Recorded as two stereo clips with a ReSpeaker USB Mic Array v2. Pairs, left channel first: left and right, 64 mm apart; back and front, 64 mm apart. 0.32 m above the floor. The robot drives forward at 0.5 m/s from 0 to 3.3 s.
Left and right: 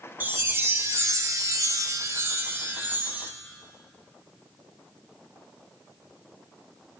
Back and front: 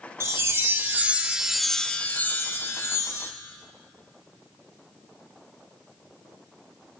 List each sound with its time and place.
0.2 s a chime: 35° right, 0.9 m; by 3.3 s 150° right, 1.0 m